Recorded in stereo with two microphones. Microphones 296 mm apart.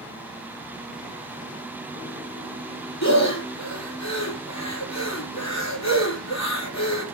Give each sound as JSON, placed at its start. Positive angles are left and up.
{"t": 3.0, "sound": "breathing", "side_deg": 60, "distance_m": 3.5}